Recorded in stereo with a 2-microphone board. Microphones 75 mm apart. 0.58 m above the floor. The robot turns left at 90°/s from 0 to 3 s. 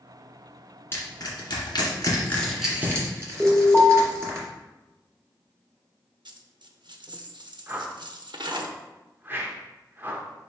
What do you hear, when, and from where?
0.9 s crushing: 30° left (ahead or behind), 2 m; by 4.4 s 40° right (ahead or behind), 2 m
3.4 s an alarm: 5° left (ahead or behind), 2 m
6.2 s a dropped coin: 75° right (ahead or behind), 0.6 m
7.7 s a whoosh: 25° right (ahead or behind), 0.8 m